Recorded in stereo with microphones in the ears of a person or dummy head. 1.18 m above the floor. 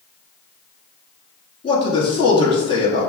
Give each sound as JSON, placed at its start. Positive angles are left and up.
{"t": 1.6, "sound": "a man speaking", "side_deg": 25, "distance_m": 2.0}